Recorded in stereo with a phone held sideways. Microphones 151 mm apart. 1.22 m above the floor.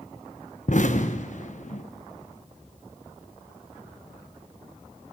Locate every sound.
0.7 s an explosion: 60° left (ahead or behind), 1.2 m